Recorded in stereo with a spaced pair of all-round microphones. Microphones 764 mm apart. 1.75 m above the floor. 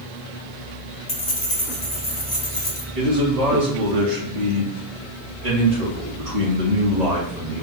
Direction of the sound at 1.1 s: 30° left (ahead or behind).